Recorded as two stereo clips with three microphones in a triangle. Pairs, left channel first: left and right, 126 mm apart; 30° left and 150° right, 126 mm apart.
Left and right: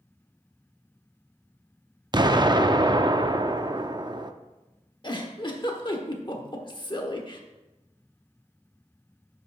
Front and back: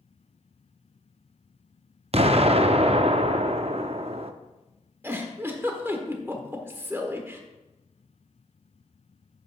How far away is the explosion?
About 0.5 m.